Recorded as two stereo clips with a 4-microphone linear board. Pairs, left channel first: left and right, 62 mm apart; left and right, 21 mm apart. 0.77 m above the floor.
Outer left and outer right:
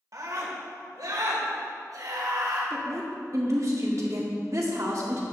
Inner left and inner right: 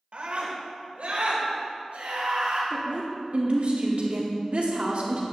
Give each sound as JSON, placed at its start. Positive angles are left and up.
{"t": 0.1, "sound": "a scream", "side_deg": -65, "distance_m": 2.0}
{"t": 2.7, "sound": "a woman speaking", "side_deg": -60, "distance_m": 1.9}